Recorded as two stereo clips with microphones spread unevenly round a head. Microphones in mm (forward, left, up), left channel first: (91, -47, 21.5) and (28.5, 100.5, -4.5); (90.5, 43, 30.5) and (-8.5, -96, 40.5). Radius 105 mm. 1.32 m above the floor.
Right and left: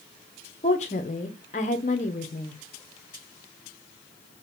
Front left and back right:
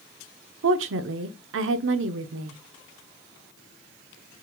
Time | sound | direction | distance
0.6 | a woman speaking | 125° right | 0.5 m